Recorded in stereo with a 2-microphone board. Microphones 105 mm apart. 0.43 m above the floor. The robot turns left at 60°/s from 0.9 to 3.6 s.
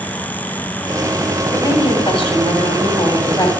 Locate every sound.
1.5 s a woman speaking: 150° left, 2 m; by 3.5 s 30° left, 2 m